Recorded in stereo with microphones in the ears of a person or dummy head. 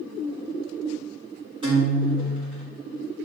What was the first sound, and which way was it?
A guitar, 25° right (ahead or behind).